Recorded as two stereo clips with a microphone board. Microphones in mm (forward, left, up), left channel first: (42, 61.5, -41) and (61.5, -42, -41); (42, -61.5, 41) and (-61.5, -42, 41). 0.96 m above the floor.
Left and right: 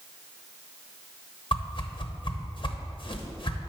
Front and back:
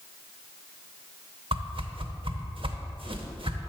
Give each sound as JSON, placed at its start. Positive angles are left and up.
{"t": 1.5, "sound": "a whoosh", "azimuth_deg": 140, "distance_m": 0.9}